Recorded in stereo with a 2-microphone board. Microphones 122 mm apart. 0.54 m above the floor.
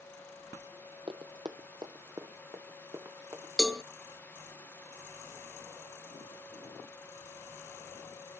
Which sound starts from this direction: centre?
A cowbell, at 3.6 s.